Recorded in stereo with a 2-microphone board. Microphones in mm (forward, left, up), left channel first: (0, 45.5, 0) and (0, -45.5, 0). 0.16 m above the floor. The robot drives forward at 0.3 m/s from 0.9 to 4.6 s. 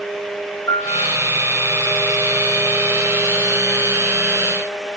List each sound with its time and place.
0.7 s a piano: 40° left (ahead or behind), 2 m